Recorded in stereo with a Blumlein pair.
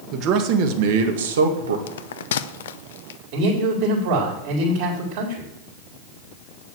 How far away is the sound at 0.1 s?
About 1.7 m.